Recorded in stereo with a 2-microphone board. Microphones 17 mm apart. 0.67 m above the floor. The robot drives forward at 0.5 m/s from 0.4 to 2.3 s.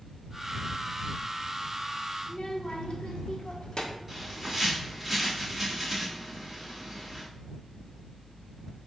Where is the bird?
5° right (ahead or behind), 2.5 m.